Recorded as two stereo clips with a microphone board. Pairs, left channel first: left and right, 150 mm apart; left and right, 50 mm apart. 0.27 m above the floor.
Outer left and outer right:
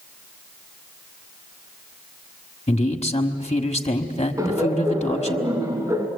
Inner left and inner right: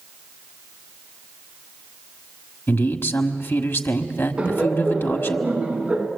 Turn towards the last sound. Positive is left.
turn(degrees=-20)  # may be behind; listen again after turning